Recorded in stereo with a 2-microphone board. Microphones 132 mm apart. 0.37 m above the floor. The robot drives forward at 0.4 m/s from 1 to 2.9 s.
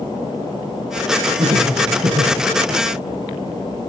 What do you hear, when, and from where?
1.4 s laughter: 55° right (ahead or behind), 7.5 m; by 2.4 s 50° right (ahead or behind), 7.5 m